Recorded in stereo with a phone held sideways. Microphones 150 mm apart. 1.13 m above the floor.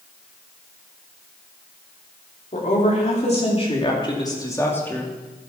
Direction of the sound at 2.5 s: 55° left (ahead or behind).